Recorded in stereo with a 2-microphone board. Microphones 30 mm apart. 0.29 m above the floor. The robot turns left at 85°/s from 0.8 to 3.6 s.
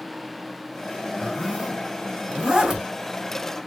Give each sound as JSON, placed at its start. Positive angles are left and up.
{"t": 1.2, "sound": "a zipper", "side_deg": 0, "distance_m": 1.6}